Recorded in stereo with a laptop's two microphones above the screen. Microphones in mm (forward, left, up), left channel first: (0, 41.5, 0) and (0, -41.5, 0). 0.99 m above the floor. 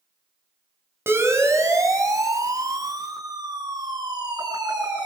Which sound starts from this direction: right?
A siren, at 1.1 s.